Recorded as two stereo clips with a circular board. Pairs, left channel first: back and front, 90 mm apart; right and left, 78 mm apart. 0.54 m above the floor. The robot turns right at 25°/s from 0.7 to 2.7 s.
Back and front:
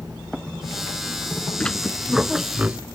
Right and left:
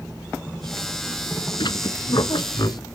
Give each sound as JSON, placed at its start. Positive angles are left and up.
{"t": 1.6, "sound": "a squeak", "azimuth_deg": -100}